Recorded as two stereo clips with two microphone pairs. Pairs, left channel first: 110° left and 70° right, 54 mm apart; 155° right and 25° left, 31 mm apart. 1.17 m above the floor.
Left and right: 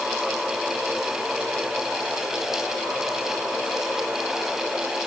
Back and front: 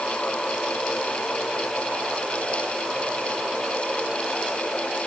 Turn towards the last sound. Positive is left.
No sound to turn to.